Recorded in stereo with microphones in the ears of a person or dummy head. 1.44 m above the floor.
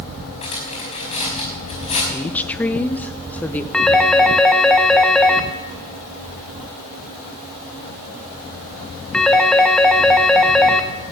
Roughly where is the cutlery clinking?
Left.